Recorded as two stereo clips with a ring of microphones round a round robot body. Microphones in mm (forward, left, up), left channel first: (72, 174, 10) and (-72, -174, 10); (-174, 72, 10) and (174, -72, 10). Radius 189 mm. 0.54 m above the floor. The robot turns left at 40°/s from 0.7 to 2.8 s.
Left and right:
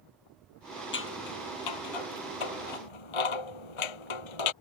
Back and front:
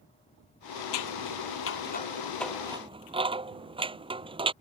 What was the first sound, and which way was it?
Scissors, 130° left.